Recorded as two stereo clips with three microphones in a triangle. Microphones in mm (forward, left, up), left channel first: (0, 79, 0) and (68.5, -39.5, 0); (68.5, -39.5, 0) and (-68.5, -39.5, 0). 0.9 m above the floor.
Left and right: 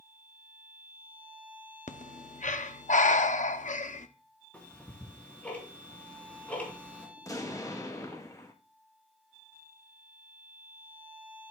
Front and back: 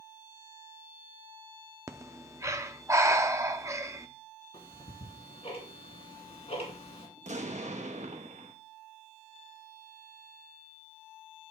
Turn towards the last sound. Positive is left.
turn(degrees=180)